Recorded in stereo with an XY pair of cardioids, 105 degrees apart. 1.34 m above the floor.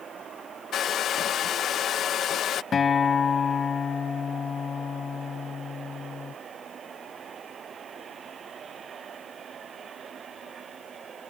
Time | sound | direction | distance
0.7 | a hair dryer | 60° left | ?
2.7 | a guitar | 40° left | ?